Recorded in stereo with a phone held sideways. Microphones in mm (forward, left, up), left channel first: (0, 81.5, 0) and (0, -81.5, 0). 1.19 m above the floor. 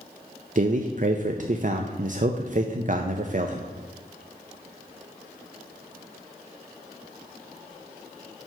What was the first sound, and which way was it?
A man speaking, 50° right (ahead or behind).